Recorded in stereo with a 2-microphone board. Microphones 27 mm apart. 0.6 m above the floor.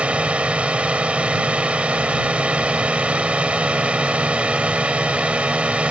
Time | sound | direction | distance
0.0 | a drone | 45° right (ahead or behind) | ?